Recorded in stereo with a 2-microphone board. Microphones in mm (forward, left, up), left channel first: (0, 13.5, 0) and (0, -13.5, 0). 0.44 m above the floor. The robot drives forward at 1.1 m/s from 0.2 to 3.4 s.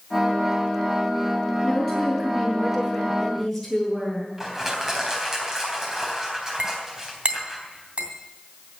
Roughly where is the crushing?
Right.